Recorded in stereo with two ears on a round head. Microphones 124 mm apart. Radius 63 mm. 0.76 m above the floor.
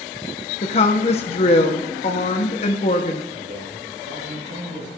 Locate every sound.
0.6 s a woman speaking: 45° left (ahead or behind), 1.0 m
3.3 s a man speaking: 60° right (ahead or behind), 6 m